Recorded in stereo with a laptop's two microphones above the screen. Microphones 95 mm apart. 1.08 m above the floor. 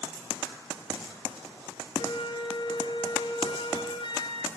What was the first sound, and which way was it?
A flute, 55° left (ahead or behind).